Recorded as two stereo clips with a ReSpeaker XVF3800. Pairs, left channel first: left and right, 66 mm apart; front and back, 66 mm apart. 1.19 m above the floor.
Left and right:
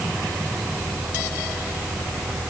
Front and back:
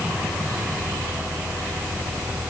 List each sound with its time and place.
Only background noise.